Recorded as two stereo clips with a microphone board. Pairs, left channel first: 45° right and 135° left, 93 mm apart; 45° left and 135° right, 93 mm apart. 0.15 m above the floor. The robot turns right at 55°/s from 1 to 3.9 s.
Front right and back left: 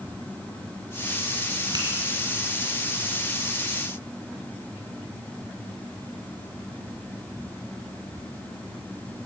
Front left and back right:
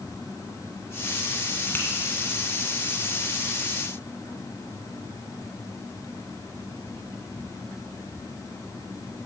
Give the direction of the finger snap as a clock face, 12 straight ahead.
8 o'clock.